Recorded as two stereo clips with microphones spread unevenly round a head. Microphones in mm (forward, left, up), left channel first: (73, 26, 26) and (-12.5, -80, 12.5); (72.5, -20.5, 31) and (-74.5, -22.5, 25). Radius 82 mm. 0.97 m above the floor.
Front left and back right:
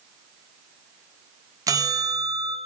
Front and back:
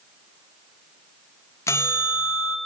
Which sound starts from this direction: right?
A bell, at 1.7 s.